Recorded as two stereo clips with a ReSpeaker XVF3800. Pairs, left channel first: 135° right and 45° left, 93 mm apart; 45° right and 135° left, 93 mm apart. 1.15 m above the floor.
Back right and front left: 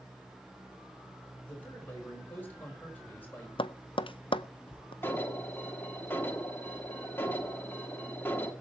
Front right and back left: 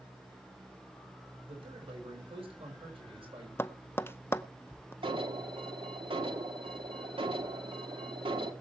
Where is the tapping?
110° right, 0.5 m.